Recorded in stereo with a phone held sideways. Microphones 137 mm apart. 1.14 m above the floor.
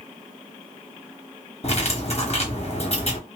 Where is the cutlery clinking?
50° left (ahead or behind), 1.0 m.